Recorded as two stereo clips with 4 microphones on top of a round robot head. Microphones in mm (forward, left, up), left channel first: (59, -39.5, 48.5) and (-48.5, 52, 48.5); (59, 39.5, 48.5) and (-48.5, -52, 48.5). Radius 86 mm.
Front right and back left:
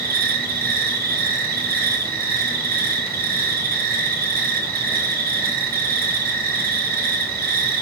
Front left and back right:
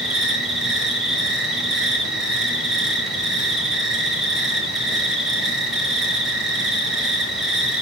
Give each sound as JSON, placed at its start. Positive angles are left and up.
{"t": 0.0, "sound": "an insect", "azimuth_deg": 130, "distance_m": 2.5}